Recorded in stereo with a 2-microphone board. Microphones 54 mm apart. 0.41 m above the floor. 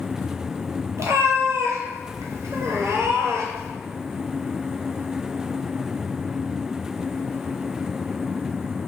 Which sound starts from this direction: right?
A cat meowing, at 1.0 s.